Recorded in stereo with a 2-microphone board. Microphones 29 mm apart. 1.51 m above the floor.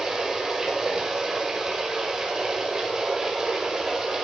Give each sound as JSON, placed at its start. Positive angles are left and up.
{"t": 0.0, "sound": "running water", "side_deg": -25, "distance_m": 5.0}